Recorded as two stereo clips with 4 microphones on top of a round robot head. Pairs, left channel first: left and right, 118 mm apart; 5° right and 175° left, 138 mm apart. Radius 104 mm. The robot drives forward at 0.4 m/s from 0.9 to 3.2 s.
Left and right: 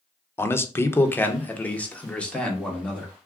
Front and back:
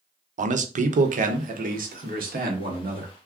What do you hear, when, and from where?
0.4 s a man speaking: 160° left, 0.6 m; by 3.1 s 175° left, 1.4 m